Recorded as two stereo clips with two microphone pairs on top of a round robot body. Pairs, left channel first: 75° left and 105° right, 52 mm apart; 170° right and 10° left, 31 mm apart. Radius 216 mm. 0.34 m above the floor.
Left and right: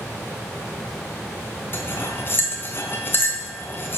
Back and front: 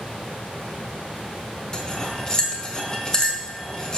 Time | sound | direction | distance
1.7 | cutlery clinking | 125° left | 1.7 m